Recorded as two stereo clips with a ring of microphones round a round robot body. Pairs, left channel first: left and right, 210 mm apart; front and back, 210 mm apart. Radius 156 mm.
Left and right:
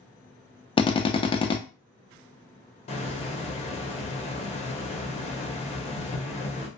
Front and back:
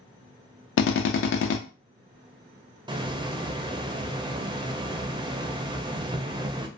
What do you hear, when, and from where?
0.8 s a drill: 20° left, 0.5 m
2.9 s a hiss: 125° left, 0.5 m